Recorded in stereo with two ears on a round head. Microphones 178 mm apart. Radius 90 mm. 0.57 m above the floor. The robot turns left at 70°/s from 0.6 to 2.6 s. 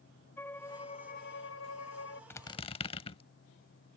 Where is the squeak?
10° left (ahead or behind); by 3.2 s 30° left (ahead or behind).